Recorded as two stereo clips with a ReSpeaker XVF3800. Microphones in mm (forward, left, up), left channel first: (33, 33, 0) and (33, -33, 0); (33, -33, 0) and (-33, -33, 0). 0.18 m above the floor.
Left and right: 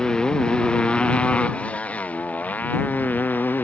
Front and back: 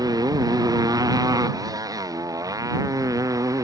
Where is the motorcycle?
170° left; by 3.6 s 150° left.